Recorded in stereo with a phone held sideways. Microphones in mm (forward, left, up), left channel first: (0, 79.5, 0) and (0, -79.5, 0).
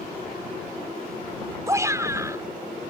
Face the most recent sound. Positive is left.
turn(degrees=-20)  # may be behind; listen again after turning